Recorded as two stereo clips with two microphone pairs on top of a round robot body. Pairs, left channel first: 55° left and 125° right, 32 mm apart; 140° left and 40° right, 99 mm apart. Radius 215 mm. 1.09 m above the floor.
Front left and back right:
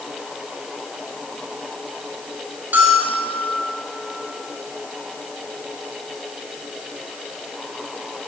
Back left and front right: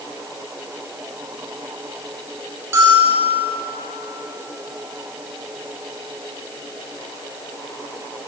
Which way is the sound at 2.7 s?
105° right.